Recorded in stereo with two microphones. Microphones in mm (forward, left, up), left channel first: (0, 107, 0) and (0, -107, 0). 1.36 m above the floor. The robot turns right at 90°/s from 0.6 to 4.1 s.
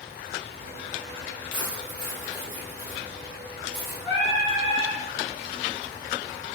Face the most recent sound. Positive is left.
turn(degrees=55)  # may be behind; listen again after turning